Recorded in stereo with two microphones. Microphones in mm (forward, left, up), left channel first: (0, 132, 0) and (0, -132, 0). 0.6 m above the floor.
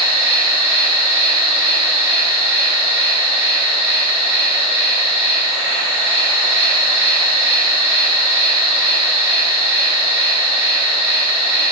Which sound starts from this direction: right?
An insect, at 0.0 s.